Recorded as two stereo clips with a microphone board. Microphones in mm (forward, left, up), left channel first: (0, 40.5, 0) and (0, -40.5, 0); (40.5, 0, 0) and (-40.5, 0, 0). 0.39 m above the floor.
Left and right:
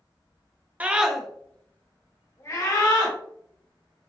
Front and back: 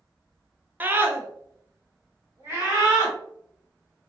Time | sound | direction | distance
0.8 | a scream | 140° right | 0.8 m